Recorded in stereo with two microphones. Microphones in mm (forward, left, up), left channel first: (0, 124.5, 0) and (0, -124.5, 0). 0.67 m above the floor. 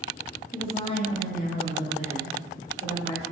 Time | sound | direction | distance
0.5 | a woman speaking | 5° left (ahead or behind) | 1.1 m